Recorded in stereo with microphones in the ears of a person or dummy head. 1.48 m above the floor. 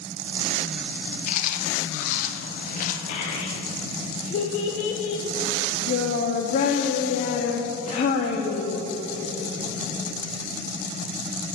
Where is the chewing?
45° left (ahead or behind), 0.8 m.